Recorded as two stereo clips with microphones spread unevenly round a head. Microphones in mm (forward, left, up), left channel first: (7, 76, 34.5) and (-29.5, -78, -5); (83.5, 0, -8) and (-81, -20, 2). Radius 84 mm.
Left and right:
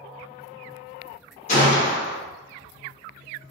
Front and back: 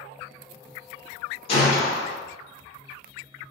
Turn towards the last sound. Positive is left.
turn(degrees=60)